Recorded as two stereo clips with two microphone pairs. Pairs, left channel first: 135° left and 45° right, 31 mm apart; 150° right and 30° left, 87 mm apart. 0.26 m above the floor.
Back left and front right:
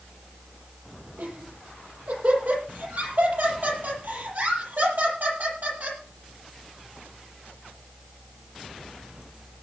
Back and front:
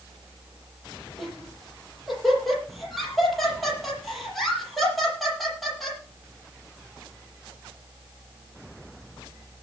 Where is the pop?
I don't hear a pop.